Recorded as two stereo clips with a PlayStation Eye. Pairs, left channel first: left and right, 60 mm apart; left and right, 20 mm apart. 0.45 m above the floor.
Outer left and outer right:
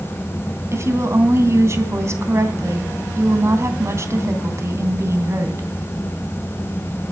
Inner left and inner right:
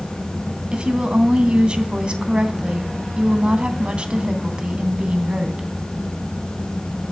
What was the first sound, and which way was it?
A woman speaking, 50° right (ahead or behind).